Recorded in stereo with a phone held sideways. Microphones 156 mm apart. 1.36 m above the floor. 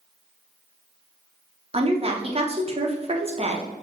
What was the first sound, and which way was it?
A woman speaking, 40° right (ahead or behind).